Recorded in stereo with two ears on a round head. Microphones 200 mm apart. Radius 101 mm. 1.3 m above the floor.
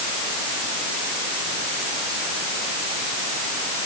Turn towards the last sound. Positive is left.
No sound to turn to.